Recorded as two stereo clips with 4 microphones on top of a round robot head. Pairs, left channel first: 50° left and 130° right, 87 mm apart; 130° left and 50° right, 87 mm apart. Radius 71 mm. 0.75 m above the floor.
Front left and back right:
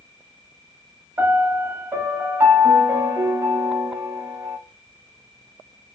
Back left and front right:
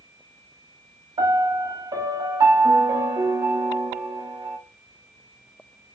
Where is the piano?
75° right, 0.8 m.